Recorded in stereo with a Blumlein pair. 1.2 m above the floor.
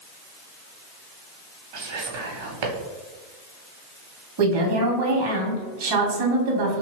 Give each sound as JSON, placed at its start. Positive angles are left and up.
{"t": 1.7, "sound": "whispering", "azimuth_deg": -50, "distance_m": 1.0}
{"t": 4.4, "sound": "a woman speaking", "azimuth_deg": -50, "distance_m": 1.0}